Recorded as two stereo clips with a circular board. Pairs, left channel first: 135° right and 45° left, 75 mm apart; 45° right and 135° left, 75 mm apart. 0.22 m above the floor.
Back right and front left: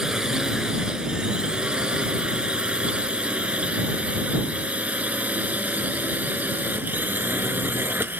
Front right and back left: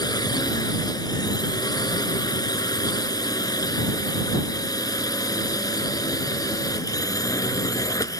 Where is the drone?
35° right; by 8.2 s 15° right.